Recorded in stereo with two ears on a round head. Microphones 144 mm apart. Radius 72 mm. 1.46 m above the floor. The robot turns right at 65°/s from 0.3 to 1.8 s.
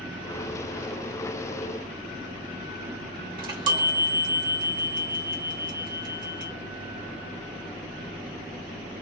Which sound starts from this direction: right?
A chime, at 3.4 s.